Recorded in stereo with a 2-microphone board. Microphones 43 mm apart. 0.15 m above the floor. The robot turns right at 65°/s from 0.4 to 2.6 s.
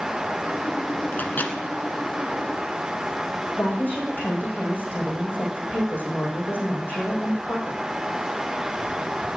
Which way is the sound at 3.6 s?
40° left (ahead or behind).